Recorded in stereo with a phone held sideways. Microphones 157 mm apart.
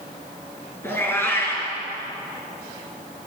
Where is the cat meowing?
15° left (ahead or behind), 5 m.